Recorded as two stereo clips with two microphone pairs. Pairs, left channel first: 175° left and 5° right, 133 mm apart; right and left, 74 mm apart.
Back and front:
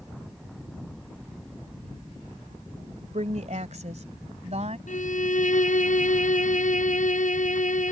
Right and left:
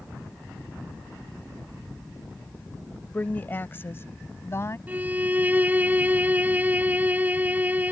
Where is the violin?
160° left.